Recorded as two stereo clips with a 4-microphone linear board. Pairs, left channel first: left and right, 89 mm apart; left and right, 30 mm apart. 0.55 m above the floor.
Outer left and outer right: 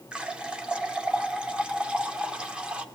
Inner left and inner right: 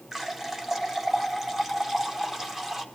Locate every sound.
0.1 s a running tap: 10° right (ahead or behind), 0.8 m